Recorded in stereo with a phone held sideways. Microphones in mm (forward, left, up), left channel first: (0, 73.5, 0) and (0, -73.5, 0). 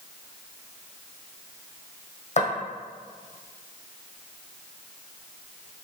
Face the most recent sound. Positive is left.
turn(degrees=50)  # may be behind; listen again after turning